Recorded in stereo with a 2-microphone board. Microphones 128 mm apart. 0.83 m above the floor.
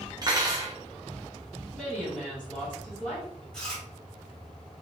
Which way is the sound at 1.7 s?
5° right (ahead or behind).